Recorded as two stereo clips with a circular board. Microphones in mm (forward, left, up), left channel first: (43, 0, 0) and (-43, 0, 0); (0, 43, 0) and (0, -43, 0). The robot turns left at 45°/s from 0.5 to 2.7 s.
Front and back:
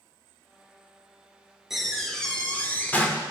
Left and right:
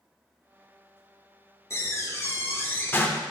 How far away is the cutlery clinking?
No cutlery clinking in this recording.